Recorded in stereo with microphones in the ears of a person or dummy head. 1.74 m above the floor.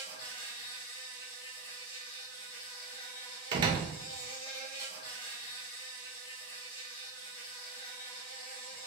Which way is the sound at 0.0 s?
20° left (ahead or behind).